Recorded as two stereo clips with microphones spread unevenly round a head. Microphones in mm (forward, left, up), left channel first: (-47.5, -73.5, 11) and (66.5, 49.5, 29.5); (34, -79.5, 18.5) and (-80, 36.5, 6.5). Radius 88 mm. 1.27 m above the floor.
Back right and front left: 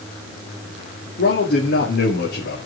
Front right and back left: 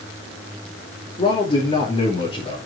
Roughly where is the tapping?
I don't hear tapping.